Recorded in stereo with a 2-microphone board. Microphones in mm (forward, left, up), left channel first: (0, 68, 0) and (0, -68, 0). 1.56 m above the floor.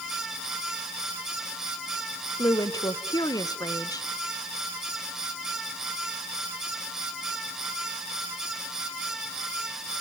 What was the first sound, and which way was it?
A woman speaking, 25° left (ahead or behind).